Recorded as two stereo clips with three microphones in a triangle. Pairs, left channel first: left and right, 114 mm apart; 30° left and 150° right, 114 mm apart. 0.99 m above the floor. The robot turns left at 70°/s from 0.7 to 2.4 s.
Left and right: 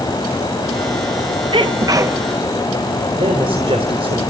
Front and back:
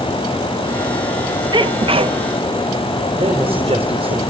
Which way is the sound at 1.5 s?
110° right.